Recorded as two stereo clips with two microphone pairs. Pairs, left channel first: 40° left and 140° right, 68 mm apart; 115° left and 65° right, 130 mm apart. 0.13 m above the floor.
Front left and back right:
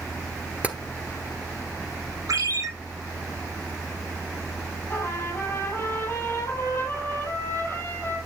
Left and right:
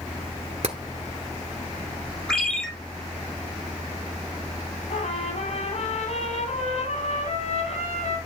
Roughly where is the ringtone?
Behind.